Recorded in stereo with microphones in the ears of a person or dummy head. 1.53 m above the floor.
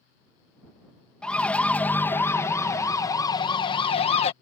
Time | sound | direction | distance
1.2 | a siren | 5° left (ahead or behind) | ?